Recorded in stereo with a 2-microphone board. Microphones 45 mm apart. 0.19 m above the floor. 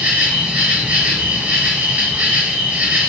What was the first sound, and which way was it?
An insect, 40° right (ahead or behind).